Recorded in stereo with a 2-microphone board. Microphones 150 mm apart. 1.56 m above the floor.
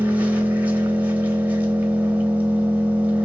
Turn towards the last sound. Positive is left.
turn(degrees=-10)  # may be behind; listen again after turning